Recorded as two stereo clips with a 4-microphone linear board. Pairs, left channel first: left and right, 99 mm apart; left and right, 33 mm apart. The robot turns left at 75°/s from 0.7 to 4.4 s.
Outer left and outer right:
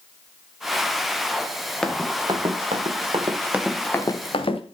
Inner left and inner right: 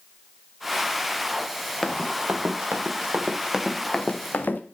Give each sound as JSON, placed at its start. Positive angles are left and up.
{"t": 1.8, "sound": "running footsteps", "side_deg": 5, "distance_m": 2.5}